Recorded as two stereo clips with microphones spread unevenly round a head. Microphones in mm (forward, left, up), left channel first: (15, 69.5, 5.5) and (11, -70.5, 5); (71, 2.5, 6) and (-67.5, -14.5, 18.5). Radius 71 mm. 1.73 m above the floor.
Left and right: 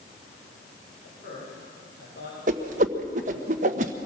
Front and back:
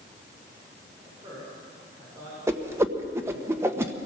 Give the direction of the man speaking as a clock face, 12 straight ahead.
8 o'clock.